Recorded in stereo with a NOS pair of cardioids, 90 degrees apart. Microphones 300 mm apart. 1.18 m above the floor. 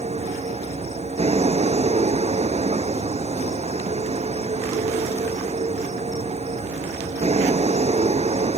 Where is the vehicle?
20° right.